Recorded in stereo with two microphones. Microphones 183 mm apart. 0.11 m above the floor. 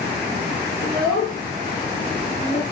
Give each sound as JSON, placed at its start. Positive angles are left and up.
{"t": 0.8, "sound": "a child speaking", "side_deg": 25, "distance_m": 1.9}